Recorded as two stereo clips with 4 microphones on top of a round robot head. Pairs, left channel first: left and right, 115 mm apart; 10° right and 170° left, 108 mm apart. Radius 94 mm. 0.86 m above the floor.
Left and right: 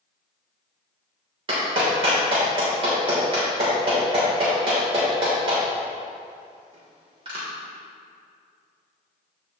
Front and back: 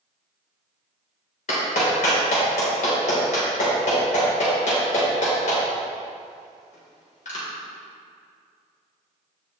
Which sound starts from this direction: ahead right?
A clap, at 1.5 s.